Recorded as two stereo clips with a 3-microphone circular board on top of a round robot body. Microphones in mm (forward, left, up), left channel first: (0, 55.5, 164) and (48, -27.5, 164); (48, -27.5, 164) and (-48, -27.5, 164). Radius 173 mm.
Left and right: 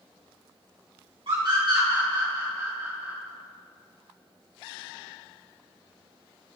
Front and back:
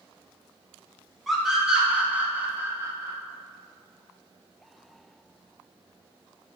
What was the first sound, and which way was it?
A scream, 90° right.